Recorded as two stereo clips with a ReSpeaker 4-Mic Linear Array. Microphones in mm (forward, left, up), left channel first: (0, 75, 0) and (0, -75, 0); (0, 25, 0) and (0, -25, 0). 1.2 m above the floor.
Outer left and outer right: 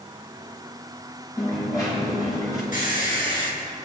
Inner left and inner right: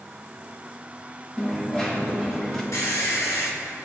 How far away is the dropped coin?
About 4.5 m.